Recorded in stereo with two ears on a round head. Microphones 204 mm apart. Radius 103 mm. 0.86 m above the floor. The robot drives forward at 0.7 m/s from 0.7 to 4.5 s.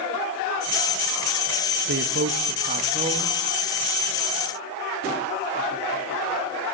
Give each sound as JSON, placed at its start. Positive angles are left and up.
{"t": 1.9, "sound": "a man speaking", "side_deg": -55, "distance_m": 0.7}